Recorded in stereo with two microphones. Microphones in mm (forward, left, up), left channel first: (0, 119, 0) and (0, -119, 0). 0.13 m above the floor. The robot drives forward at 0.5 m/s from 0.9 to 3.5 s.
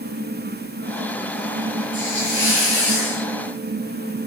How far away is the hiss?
About 7 m.